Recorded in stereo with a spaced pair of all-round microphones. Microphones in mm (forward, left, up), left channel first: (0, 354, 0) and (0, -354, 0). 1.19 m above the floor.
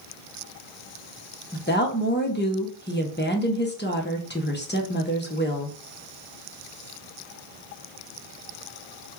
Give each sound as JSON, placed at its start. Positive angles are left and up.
{"t": 1.5, "sound": "a woman speaking", "side_deg": 15, "distance_m": 0.6}